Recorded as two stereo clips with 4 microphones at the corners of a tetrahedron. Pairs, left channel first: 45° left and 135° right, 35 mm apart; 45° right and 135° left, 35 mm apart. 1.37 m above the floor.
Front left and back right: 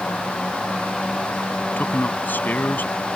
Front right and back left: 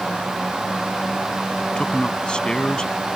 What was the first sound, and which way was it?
A man speaking, 20° left.